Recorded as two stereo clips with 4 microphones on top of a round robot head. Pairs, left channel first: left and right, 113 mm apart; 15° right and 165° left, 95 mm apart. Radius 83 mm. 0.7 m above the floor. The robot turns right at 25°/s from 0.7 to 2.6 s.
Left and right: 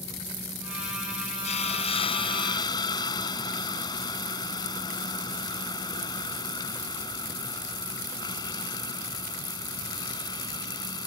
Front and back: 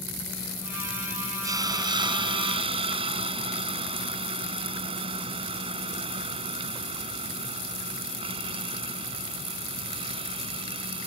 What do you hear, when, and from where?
1.4 s a hiss: 115° left; by 11.1 s 140° left